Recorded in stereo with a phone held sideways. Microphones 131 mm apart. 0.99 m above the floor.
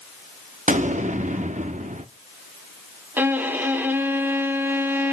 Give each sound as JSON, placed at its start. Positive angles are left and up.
{"t": 0.7, "sound": "an explosion", "side_deg": -65, "distance_m": 0.9}
{"t": 3.2, "sound": "a violin", "side_deg": -15, "distance_m": 1.4}